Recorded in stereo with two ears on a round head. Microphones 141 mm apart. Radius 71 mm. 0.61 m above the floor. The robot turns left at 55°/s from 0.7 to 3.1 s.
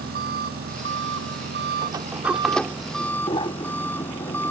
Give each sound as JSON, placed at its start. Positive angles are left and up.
{"t": 0.0, "sound": "an engine running", "azimuth_deg": -60}
{"t": 1.8, "sound": "a sliding door", "side_deg": -30}